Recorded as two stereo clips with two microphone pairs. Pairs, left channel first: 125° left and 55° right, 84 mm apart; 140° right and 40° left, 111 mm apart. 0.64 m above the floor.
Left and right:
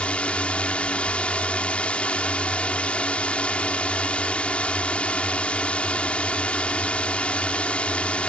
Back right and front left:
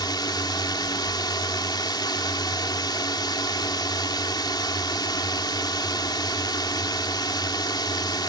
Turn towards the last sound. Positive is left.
turn(degrees=-165)